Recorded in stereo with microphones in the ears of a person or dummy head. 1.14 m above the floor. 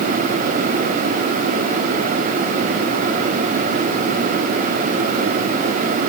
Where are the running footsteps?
I don't hear running footsteps.